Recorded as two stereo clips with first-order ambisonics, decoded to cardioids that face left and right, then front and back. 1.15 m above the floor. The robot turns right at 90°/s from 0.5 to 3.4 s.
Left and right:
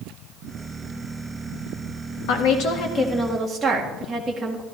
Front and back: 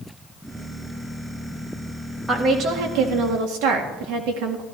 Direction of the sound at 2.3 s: 95° left.